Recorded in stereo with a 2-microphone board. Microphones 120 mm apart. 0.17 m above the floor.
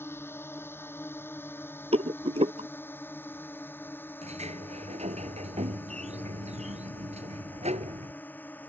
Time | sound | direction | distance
0.0 | a drone | 20° left (ahead or behind) | ?
1.9 | a rattle | 60° right (ahead or behind) | ?
4.2 | a sliding door | 65° right (ahead or behind) | ?